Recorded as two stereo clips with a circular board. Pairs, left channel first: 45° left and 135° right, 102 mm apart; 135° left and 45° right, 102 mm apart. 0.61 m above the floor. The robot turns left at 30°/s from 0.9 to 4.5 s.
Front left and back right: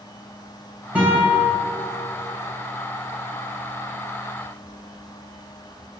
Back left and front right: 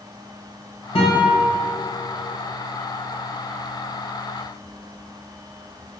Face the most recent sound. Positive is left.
turn(degrees=40)